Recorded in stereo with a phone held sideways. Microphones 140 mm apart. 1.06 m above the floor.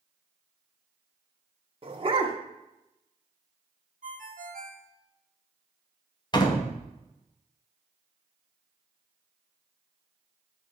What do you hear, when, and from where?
1.8 s a dog barking: 40° right (ahead or behind), 1.0 m
4.0 s a ringtone: 70° right (ahead or behind), 1.1 m
6.3 s a door slam: 30° left (ahead or behind), 1.0 m